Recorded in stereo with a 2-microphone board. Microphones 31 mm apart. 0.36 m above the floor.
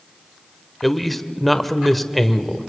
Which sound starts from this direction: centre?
A man speaking, at 0.8 s.